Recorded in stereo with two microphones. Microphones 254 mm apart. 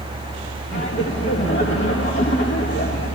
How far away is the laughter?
About 1.6 m.